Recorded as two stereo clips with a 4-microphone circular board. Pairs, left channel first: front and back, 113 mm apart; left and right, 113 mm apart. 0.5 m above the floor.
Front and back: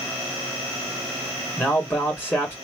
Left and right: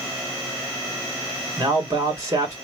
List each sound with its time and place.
1.6 s a man speaking: 60° right, 1.5 m